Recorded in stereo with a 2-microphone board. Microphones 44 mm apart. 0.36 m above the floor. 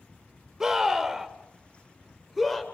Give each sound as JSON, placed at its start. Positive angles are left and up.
{"t": 0.6, "sound": "a scream", "side_deg": -15, "distance_m": 1.4}